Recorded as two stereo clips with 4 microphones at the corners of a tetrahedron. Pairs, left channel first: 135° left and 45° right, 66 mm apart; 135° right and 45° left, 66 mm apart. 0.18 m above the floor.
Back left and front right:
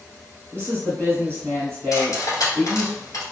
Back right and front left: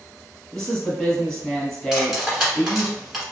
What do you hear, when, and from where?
0.5 s a woman speaking: 55° right, 1.5 m
1.9 s cutlery clinking: 130° left, 1.3 m